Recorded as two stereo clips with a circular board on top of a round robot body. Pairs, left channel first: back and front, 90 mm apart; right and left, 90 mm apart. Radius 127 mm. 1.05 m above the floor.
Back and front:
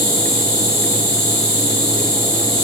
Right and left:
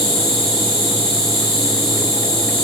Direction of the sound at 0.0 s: 60° right.